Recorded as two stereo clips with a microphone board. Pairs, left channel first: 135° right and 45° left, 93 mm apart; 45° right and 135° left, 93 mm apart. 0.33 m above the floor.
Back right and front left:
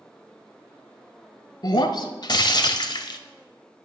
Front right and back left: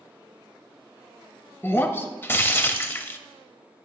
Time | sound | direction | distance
1.6 | breaking glass | 105° right | 0.5 m